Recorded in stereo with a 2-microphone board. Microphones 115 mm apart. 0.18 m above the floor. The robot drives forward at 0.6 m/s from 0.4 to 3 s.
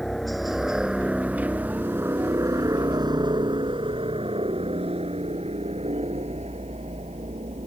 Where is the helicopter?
5° left (ahead or behind); by 7.7 s 65° right (ahead or behind).